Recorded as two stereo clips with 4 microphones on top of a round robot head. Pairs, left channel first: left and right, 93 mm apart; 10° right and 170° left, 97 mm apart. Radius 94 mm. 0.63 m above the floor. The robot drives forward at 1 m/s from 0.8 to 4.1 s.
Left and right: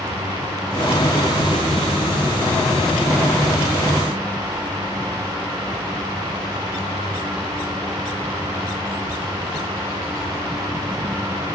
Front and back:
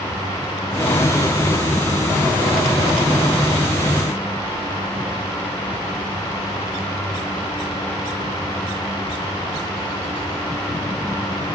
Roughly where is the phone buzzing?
I don't hear a phone buzzing.